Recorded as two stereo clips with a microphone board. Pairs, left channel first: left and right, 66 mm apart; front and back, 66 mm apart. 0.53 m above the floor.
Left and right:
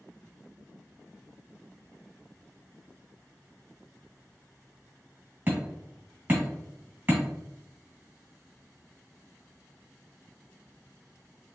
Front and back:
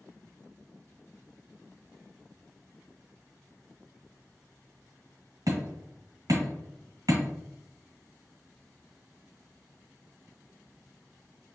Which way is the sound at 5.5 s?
150° right.